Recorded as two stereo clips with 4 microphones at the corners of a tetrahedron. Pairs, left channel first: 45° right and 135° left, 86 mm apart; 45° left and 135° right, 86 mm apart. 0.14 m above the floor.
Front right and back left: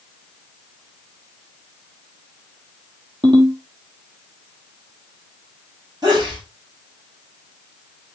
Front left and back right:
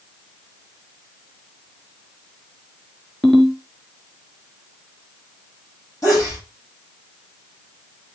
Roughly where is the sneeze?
Left.